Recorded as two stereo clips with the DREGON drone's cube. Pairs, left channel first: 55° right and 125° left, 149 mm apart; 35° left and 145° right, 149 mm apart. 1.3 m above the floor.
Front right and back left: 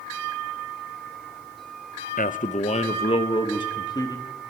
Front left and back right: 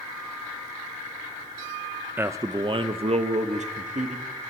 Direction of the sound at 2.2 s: 70° right.